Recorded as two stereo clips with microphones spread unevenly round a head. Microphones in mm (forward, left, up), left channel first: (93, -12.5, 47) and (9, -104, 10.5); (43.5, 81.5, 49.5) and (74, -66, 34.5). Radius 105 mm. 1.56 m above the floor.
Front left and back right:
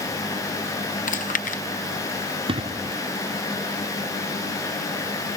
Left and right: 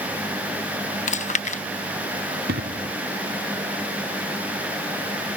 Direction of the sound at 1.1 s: 65° left.